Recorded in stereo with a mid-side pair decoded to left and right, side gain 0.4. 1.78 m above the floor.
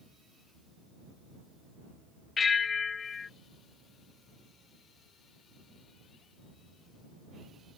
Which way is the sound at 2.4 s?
45° left.